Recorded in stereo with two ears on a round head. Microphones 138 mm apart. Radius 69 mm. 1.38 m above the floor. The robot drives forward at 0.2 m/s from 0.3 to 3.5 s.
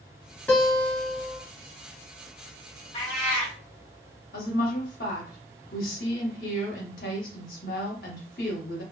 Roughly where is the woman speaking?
Left.